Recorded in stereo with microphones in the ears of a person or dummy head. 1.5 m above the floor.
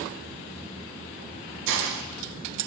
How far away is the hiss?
About 0.6 m.